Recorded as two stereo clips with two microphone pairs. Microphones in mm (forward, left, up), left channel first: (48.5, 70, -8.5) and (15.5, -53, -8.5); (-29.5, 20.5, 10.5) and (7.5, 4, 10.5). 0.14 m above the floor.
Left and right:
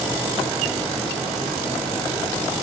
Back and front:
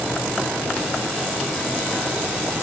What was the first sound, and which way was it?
Only background noise.